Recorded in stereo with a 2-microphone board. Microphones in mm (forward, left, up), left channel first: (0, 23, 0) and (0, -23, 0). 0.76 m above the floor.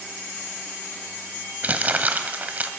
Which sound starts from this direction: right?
Crumpling, at 1.6 s.